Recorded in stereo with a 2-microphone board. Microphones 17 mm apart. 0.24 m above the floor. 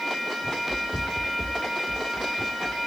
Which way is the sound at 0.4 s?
15° right (ahead or behind).